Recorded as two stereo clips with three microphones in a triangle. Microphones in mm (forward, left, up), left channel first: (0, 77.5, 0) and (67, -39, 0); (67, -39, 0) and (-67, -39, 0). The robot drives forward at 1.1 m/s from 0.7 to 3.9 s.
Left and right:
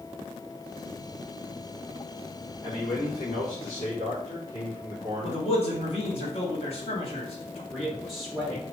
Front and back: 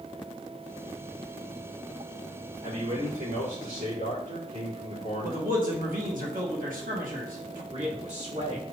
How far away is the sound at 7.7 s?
About 2 m.